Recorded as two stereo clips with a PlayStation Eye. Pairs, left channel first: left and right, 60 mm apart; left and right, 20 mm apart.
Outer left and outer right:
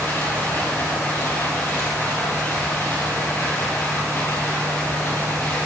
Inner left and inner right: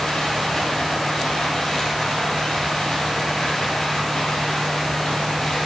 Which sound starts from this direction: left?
Running water, at 0.0 s.